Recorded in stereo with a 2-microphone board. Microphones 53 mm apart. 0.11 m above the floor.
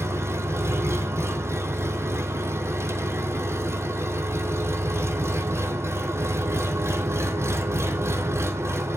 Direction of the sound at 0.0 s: 65° right (ahead or behind).